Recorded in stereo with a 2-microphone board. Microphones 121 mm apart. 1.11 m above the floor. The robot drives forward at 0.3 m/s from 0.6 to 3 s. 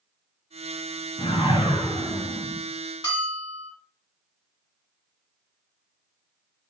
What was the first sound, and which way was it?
A whoosh, 45° left (ahead or behind).